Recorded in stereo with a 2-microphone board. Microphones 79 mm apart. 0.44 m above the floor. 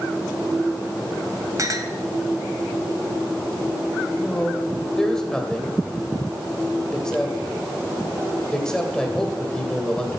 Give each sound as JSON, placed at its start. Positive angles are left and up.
{"t": 1.6, "sound": "a clink", "side_deg": -45, "distance_m": 1.5}
{"t": 4.2, "sound": "a man speaking", "side_deg": 10, "distance_m": 2.5}